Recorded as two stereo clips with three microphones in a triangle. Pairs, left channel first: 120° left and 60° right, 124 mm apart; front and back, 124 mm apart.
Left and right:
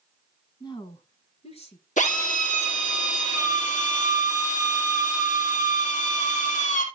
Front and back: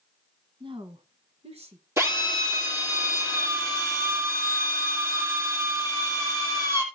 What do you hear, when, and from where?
0.6 s a woman speaking: 160° left, 1.4 m; by 1.9 s 150° left, 3 m
2.0 s a drill: 110° left, 3 m